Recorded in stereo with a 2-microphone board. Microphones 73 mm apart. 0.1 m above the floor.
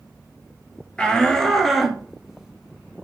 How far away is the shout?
About 2.0 m.